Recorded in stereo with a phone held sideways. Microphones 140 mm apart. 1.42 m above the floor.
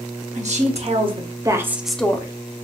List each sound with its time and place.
0.3 s a woman speaking: 60° right (ahead or behind), 1.0 m; by 2.3 s 25° left (ahead or behind), 0.5 m